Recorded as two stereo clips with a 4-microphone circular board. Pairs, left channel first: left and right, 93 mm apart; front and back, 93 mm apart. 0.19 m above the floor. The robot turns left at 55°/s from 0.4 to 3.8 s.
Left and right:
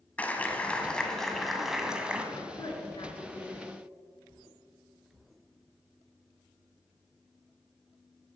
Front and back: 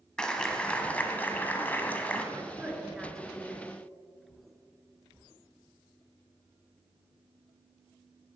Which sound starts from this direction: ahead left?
A clap, at 0.2 s.